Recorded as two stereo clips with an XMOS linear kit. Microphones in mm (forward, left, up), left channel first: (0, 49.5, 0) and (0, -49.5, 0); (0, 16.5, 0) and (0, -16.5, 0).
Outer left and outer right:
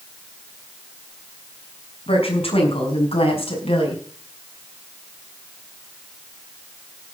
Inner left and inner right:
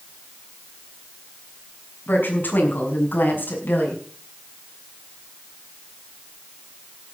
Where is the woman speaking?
75° left (ahead or behind), 6 m; by 4.0 s 80° left, 5 m.